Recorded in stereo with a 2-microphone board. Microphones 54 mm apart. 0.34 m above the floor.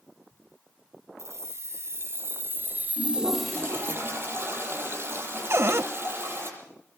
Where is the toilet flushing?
45° right (ahead or behind), 7.5 m.